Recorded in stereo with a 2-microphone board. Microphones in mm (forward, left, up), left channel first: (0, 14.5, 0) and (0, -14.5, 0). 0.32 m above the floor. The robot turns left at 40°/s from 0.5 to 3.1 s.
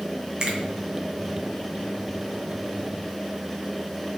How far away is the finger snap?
About 2.5 m.